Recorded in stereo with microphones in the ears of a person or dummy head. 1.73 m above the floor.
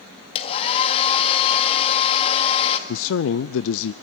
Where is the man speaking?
65° left (ahead or behind), 0.5 m.